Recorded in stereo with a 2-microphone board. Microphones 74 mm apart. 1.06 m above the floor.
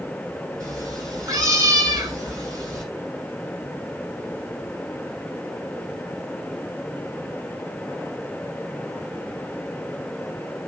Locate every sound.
0.6 s a cat meowing: 45° right (ahead or behind), 8 m